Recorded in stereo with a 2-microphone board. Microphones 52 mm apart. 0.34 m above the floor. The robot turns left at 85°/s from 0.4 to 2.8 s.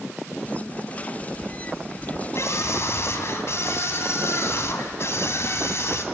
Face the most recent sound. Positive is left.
turn(degrees=70)